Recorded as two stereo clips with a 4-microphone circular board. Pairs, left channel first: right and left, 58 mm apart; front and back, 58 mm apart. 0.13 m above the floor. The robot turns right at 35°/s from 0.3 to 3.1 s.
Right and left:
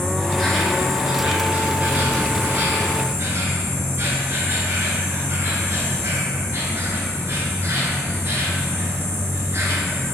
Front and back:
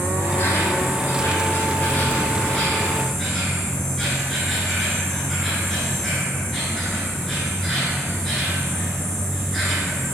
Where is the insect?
10° right, 0.9 m; by 10.2 s 85° left, 0.9 m.